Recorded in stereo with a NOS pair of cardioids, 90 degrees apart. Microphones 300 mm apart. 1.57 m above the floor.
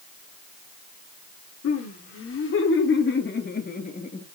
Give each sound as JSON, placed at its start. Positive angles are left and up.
{"t": 1.6, "sound": "laughter", "azimuth_deg": 50, "distance_m": 6.0}